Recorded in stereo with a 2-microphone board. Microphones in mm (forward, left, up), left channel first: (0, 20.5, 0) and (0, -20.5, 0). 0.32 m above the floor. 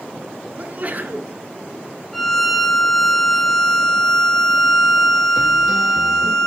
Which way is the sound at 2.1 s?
5° left (ahead or behind).